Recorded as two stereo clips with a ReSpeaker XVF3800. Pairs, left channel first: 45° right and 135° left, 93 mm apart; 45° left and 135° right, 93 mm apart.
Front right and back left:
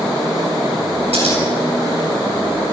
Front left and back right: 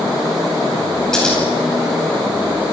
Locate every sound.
1.1 s scissors: 130° left, 9.5 m